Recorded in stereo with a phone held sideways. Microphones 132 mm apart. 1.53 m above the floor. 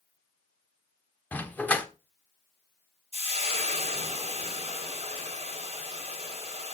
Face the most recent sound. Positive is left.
turn(degrees=-55)  # may be behind; listen again after turning